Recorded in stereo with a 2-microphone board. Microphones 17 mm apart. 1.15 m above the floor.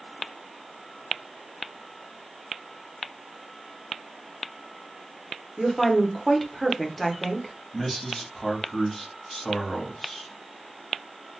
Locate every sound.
5.6 s a woman speaking: 20° left (ahead or behind), 0.8 m
7.7 s a man speaking: 25° left (ahead or behind), 1.4 m